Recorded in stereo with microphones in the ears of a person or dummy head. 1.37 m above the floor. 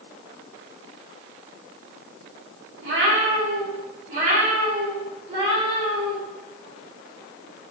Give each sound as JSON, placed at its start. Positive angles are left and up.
{"t": 2.8, "sound": "a cat meowing", "side_deg": -70, "distance_m": 1.6}